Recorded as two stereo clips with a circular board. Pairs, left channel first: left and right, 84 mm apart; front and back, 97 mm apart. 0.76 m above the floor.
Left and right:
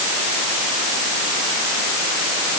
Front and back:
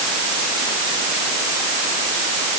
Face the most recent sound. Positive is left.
No sound to turn to.